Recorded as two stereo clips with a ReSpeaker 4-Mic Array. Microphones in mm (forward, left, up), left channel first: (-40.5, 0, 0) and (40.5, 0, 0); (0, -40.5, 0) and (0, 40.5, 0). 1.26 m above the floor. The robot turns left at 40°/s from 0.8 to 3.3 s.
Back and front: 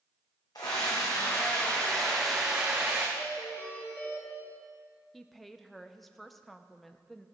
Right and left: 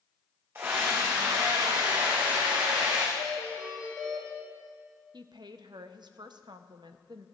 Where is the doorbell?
125° left, 3 m; by 4.3 s 115° left, 3 m.